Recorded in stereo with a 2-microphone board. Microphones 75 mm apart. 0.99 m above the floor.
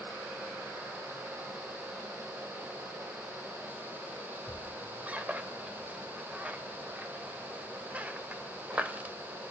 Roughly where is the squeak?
Centre.